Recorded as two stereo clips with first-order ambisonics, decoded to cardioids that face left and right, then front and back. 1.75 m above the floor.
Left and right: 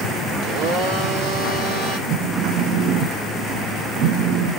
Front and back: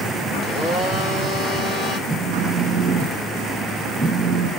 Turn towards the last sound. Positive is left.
turn(degrees=-85)